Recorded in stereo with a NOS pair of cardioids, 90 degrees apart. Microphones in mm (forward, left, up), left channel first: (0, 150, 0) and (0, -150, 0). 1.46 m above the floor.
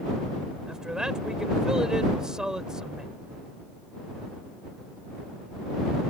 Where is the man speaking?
Straight ahead.